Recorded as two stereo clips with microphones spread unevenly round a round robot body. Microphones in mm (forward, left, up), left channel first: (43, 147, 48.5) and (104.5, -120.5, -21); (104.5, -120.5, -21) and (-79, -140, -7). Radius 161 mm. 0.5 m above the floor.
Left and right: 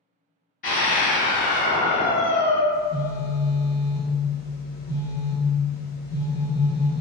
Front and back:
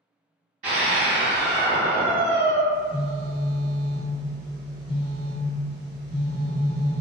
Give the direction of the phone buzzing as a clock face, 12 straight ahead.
7 o'clock.